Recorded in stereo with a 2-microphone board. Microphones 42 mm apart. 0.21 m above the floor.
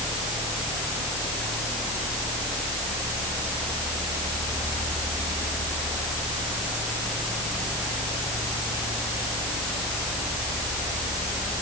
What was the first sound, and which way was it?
Only background noise.